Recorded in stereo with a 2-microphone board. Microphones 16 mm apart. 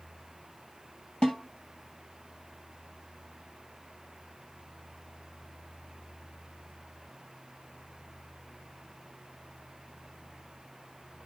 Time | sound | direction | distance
1.2 | a snare drum | 70° left (ahead or behind) | 2.5 m